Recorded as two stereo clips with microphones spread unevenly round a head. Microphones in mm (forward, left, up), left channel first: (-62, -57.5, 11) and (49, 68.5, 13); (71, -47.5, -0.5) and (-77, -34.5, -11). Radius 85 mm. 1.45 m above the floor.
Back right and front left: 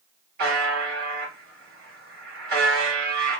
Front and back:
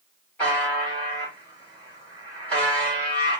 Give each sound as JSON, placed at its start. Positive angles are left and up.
{"t": 0.4, "sound": "a buzzer", "azimuth_deg": 75, "distance_m": 1.5}